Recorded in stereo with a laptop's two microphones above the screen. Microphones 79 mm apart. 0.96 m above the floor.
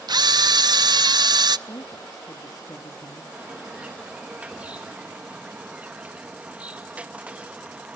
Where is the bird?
15° right (ahead or behind), 1.0 m.